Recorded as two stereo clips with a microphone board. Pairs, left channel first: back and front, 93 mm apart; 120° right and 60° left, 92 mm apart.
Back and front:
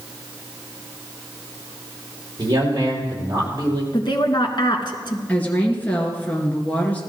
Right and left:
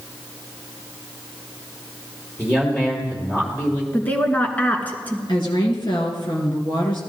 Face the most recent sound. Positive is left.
turn(degrees=-110)